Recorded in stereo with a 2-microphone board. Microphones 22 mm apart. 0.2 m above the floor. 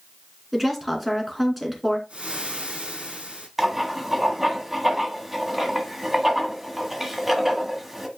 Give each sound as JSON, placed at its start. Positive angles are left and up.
{"t": 0.5, "sound": "a woman speaking", "side_deg": -5, "distance_m": 2.5}
{"t": 2.1, "sound": "frying", "side_deg": -80, "distance_m": 5.5}
{"t": 3.6, "sound": "writing", "side_deg": -15, "distance_m": 1.4}